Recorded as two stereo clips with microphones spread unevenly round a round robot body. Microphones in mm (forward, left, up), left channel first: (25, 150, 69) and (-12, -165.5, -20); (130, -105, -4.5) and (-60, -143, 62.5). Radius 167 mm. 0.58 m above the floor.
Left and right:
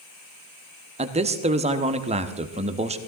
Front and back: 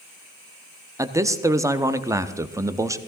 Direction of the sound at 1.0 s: 75° right.